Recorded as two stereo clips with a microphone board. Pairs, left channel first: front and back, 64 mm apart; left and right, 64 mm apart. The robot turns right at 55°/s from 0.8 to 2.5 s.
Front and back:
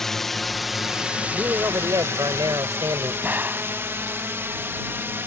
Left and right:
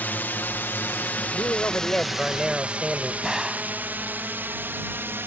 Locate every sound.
0.0 s a drone: 75° left; by 5.3 s 135° right
1.3 s a man speaking: 125° left; by 3.1 s 170° right
3.2 s a gunshot: 170° right